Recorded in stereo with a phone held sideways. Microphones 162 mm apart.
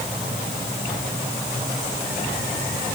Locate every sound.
Only background noise.